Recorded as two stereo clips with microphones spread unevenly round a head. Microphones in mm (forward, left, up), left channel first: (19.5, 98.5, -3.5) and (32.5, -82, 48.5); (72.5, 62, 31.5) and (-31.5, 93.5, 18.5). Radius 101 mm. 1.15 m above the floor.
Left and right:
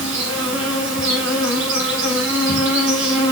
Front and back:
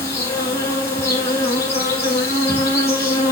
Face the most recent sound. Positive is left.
turn(degrees=-70)